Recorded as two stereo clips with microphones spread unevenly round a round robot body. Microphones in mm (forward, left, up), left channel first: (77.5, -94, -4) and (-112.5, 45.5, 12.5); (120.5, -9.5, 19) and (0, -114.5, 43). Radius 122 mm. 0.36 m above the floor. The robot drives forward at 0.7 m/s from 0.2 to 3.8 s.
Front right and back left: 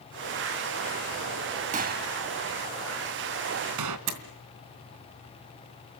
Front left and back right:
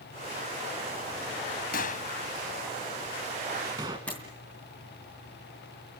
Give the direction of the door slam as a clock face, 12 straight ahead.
8 o'clock.